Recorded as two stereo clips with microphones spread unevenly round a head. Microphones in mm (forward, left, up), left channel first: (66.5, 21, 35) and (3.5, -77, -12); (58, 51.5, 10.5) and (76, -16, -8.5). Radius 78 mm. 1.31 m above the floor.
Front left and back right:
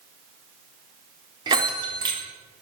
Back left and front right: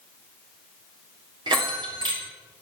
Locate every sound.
1.5 s a bell: 70° right, 3.5 m